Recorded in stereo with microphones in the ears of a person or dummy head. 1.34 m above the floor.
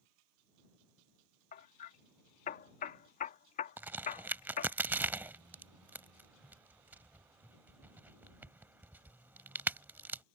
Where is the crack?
5° right (ahead or behind).